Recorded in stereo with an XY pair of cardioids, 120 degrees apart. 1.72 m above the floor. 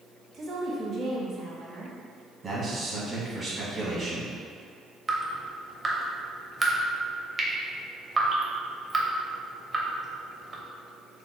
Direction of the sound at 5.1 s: 25° right.